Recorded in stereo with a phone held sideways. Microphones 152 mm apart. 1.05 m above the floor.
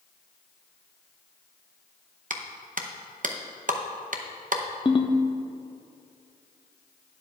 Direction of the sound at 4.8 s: 30° left (ahead or behind).